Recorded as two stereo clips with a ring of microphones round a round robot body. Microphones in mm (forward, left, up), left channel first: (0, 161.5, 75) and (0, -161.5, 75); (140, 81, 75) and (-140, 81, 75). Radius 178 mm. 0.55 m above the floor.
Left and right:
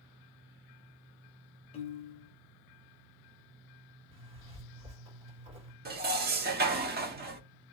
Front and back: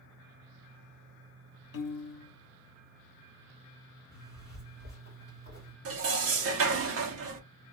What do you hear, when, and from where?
1.7 s a piano: 20° left, 0.5 m
4.1 s a zipper: 135° right, 1.9 m
5.8 s dishes clattering: 150° right, 0.7 m